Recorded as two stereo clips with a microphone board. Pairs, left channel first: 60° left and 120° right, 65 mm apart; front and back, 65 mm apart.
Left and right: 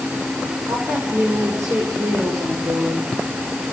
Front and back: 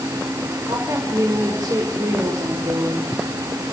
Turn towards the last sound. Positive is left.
turn(degrees=-165)